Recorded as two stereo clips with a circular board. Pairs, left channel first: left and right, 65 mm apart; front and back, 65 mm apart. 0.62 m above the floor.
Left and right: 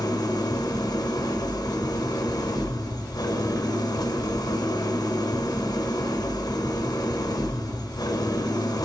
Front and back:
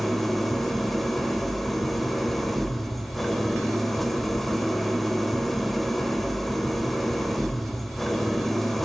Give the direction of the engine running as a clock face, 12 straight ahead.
9 o'clock.